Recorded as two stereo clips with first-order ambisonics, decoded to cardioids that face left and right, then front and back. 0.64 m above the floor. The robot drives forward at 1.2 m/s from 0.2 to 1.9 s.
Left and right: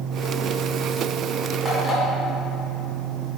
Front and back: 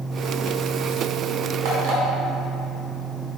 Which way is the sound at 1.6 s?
170° right.